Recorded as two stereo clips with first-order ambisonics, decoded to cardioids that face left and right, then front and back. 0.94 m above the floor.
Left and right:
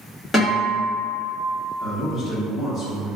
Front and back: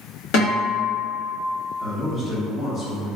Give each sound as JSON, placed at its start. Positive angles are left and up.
{"t": 0.3, "sound": "a guitar", "azimuth_deg": 15, "distance_m": 1.4}
{"t": 1.8, "sound": "a man speaking", "azimuth_deg": 40, "distance_m": 1.1}